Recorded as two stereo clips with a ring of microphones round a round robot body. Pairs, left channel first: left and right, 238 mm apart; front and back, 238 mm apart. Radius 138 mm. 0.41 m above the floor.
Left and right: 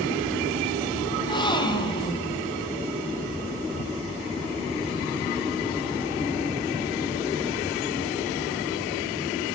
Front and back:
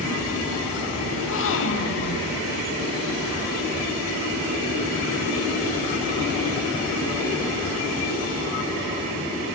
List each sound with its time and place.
1.1 s a gasp: 20° left, 3.5 m